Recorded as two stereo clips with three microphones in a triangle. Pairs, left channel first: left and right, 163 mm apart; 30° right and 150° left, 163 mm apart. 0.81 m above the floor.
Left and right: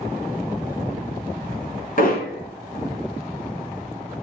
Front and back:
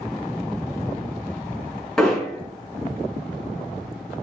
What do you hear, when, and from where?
2.0 s hammering: 60° left, 5 m